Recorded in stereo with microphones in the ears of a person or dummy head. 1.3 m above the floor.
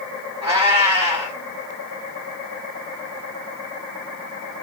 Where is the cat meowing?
25° right (ahead or behind), 1.0 m.